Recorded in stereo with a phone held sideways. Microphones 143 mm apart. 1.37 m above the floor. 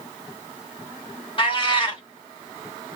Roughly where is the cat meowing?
Left.